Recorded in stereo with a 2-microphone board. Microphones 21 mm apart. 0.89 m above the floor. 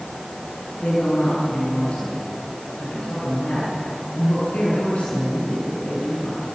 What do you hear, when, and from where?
0.8 s a woman speaking: 80° left, 8.5 m